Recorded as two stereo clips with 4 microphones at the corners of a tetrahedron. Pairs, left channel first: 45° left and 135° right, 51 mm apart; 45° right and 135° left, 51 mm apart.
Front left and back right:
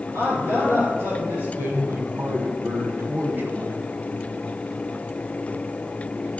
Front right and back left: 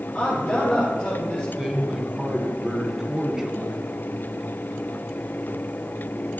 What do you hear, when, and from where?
0.1 s a man speaking: 120° right, 5.5 m
1.6 s a man speaking: 150° right, 1.9 m